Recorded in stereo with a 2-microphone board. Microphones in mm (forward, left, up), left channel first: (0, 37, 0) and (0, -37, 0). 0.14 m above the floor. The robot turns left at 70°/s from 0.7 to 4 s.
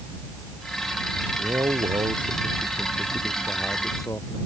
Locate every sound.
1.4 s a man speaking: 35° right; by 4.4 s 140° left